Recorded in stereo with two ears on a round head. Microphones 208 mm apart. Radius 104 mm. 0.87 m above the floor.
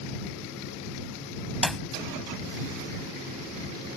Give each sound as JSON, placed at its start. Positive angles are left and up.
{"t": 1.6, "sound": "a clap", "side_deg": 0}